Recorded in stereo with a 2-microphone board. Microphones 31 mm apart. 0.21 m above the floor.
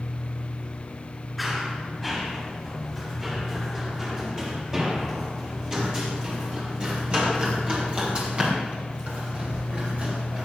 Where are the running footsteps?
5° right (ahead or behind), 7 m; by 10.4 s 40° right (ahead or behind), 9.5 m.